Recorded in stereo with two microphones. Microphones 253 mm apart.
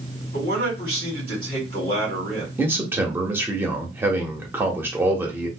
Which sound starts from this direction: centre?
A man speaking, at 2.6 s.